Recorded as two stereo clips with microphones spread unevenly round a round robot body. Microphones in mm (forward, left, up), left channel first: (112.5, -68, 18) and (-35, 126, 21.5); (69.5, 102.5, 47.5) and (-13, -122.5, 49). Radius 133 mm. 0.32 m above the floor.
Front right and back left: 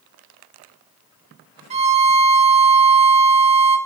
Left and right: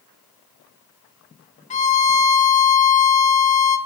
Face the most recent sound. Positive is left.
turn(degrees=90)